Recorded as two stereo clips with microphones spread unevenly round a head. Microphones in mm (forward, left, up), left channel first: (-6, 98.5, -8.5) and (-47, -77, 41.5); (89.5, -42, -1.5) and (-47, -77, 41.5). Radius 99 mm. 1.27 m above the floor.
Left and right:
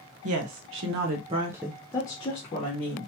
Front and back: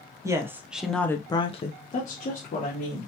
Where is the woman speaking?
90° right, 0.9 m; by 3.1 s 35° left, 1.3 m.